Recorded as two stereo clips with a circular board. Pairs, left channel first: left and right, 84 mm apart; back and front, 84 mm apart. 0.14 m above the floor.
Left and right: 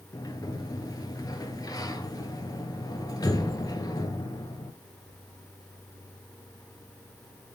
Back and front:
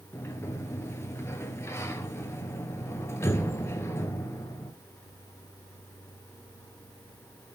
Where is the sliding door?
125° left, 1.0 m.